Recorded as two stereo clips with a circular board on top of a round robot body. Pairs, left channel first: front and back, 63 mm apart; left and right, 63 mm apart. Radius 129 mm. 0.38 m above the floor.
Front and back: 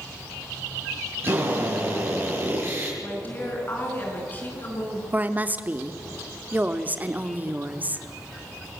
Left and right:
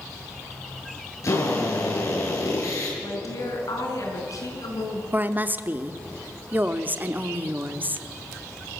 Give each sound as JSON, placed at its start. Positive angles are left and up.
{"t": 1.2, "sound": "a drill", "azimuth_deg": 130, "distance_m": 7.0}
{"t": 3.0, "sound": "a woman speaking", "azimuth_deg": 60, "distance_m": 5.5}
{"t": 5.1, "sound": "a woman speaking", "azimuth_deg": -130, "distance_m": 1.3}